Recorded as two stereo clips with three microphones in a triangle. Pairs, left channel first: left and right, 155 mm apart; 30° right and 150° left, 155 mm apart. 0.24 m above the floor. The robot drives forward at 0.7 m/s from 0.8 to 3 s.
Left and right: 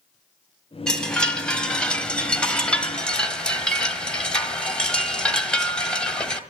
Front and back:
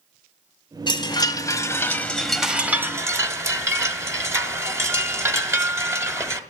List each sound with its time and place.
0.9 s a chime: 5° left, 1.6 m; by 6.4 s 160° left, 1.2 m